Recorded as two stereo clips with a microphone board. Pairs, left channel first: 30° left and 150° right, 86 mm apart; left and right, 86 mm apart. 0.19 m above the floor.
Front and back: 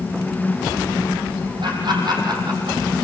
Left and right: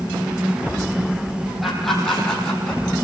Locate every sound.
1.6 s laughter: straight behind, 8.5 m; by 3.0 s 170° left, 8.5 m